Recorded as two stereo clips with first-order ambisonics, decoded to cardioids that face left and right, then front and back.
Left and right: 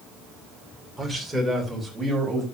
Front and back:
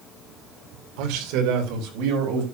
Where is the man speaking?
Straight behind, 2.5 m; by 2.4 s 170° right, 4 m.